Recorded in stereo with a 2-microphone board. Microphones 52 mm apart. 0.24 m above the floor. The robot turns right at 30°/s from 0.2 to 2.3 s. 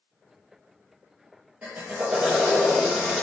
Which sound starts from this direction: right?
A drill, at 1.6 s.